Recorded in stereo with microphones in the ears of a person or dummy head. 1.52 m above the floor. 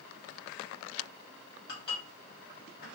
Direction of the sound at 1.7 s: 65° left (ahead or behind).